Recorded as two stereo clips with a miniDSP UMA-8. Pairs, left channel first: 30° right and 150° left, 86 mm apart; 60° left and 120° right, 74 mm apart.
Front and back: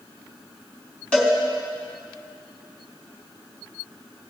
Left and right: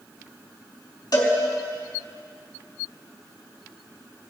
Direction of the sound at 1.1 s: 45° left.